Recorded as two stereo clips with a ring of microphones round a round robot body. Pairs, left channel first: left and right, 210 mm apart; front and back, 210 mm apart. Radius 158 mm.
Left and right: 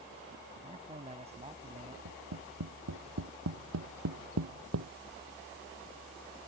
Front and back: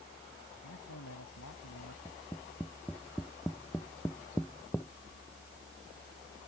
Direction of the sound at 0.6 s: 30° right.